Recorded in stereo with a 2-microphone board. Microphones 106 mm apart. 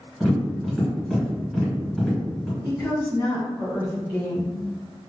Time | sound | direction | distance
0.2 | tapping | centre (ahead or behind) | 1.9 m
2.6 | a woman speaking | 15° right (ahead or behind) | 1.5 m